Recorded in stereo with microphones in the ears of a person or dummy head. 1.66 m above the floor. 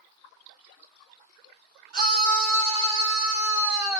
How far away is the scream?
About 1.8 m.